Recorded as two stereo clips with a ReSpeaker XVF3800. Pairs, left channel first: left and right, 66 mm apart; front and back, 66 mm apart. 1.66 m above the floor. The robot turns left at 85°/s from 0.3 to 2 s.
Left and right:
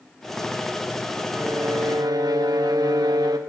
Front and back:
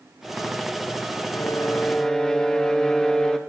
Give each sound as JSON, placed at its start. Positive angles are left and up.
{"t": 1.3, "sound": "a violin", "azimuth_deg": -25, "distance_m": 1.3}